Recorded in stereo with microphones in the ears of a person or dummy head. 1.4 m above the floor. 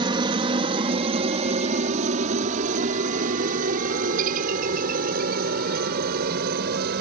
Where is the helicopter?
25° right (ahead or behind); by 7.0 s 50° right (ahead or behind).